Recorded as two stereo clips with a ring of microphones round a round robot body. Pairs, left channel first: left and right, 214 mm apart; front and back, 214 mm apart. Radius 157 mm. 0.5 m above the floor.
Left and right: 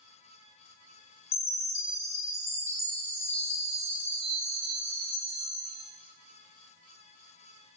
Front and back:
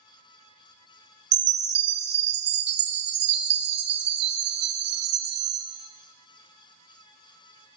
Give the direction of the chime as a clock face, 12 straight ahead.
7 o'clock.